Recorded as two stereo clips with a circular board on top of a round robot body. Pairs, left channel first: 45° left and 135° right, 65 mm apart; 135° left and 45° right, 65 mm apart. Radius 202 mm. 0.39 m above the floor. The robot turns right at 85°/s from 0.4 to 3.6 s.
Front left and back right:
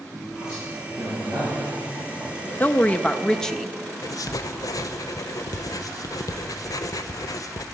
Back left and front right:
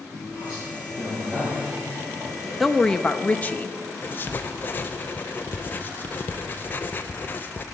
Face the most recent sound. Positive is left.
turn(degrees=75)